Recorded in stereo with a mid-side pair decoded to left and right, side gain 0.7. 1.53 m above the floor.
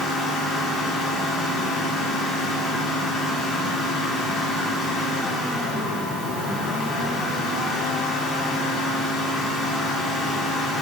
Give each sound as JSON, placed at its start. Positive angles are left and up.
{"t": 0.0, "sound": "a fan", "azimuth_deg": 45, "distance_m": 2.5}